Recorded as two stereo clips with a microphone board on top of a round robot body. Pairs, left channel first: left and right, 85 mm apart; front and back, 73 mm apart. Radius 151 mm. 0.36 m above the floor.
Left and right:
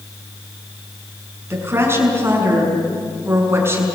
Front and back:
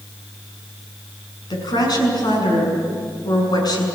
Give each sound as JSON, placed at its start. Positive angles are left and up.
{"t": 1.5, "sound": "a woman speaking", "azimuth_deg": -30, "distance_m": 6.0}